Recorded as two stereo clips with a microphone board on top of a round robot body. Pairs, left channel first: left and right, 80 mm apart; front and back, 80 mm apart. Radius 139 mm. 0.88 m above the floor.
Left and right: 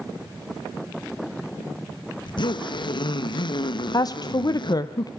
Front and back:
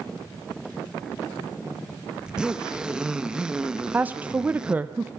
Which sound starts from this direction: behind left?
A woman speaking, at 3.9 s.